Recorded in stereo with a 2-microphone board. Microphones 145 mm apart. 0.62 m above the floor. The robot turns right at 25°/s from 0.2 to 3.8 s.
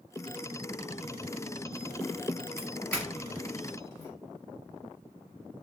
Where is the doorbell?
5° left (ahead or behind), 1.4 m; by 4.1 s 25° left (ahead or behind), 1.4 m.